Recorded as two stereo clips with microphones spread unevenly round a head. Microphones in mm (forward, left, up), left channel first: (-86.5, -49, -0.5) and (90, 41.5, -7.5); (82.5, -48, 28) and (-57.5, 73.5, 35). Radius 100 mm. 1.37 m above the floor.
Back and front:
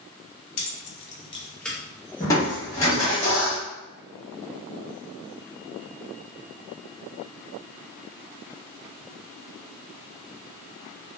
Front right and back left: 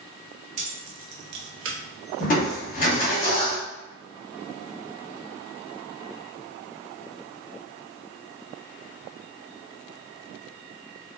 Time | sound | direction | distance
0.6 | keys jangling | 165° right | 0.6 m
2.2 | crushing | 85° right | 1.1 m